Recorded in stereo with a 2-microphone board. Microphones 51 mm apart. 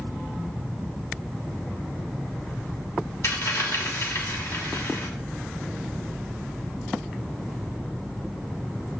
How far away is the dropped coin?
About 2.5 m.